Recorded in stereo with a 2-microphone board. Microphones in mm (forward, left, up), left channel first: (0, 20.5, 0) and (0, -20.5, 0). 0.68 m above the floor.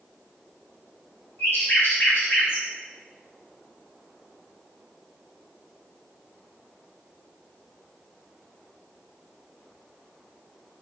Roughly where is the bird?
Left.